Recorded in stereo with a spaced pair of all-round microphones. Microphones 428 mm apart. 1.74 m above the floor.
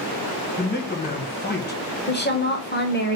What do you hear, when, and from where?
0.6 s a man speaking: 25° left (ahead or behind), 1.0 m
2.1 s a woman speaking: 25° left (ahead or behind), 0.8 m